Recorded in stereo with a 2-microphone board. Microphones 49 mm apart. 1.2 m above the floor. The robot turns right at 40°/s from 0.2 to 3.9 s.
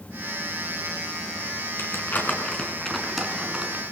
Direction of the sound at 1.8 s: 55° left (ahead or behind).